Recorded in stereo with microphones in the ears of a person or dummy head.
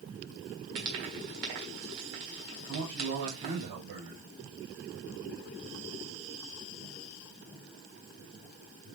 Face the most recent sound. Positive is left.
turn(degrees=-40)  # may be behind; listen again after turning